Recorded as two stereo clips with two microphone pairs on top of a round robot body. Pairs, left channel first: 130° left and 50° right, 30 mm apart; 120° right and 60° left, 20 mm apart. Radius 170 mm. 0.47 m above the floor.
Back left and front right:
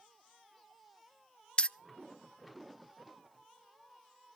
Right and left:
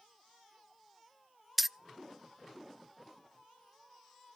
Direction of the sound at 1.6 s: 135° left.